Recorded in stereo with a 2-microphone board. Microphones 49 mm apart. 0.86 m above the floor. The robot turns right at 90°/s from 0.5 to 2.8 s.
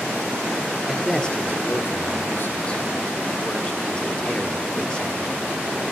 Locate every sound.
0.9 s a man speaking: 15° right, 3 m; by 5.3 s 160° left, 3 m